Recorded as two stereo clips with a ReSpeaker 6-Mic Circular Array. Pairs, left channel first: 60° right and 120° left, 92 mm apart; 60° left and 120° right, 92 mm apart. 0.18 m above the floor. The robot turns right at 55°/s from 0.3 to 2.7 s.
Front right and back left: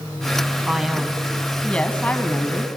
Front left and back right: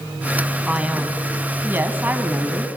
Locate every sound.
0.7 s a man speaking: straight behind, 1.2 m; by 2.7 s 65° right, 1.2 m